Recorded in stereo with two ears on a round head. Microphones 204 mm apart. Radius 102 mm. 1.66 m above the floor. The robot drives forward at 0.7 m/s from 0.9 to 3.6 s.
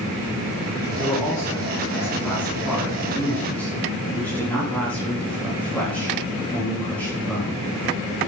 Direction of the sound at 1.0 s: 15° left (ahead or behind).